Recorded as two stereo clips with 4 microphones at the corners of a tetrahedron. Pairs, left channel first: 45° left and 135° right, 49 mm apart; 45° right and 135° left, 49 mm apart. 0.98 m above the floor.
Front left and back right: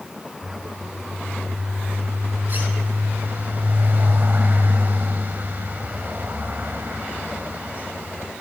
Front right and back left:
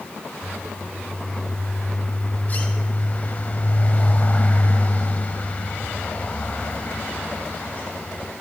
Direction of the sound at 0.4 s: 100° right.